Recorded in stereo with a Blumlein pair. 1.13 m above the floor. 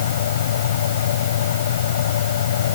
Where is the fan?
60° left.